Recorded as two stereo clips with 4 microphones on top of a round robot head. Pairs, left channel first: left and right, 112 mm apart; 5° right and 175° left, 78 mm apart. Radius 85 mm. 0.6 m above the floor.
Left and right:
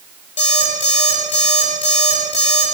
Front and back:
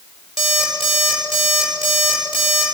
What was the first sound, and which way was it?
An alarm clock, 90° left.